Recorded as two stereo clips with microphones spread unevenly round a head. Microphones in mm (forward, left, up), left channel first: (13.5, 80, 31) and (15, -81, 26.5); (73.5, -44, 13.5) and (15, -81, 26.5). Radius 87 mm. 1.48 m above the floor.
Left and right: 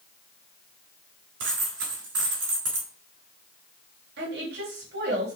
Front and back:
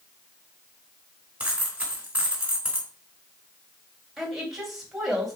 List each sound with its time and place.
1.4 s a dropped coin: 80° right, 3 m
4.2 s a woman speaking: 65° right, 3 m